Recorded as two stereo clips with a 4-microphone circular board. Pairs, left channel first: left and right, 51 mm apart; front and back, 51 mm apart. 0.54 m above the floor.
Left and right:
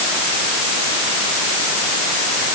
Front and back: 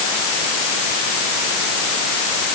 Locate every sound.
Only background noise.